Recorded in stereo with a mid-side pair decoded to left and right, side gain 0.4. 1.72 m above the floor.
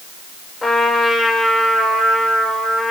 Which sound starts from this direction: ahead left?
A trumpet, at 0.6 s.